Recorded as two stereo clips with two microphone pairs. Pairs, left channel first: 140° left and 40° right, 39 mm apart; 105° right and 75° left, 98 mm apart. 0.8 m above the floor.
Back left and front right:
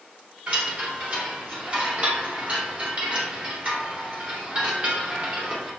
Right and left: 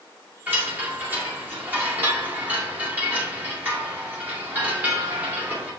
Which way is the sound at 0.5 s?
10° left.